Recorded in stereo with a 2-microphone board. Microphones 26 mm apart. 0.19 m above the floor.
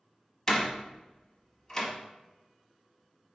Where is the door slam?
20° left (ahead or behind), 0.8 m.